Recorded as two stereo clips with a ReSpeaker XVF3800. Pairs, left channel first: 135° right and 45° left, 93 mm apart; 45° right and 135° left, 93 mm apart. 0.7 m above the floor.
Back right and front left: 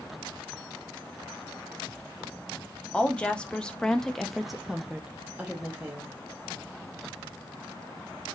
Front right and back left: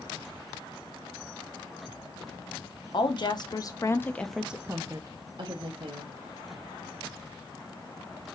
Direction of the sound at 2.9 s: 60° right.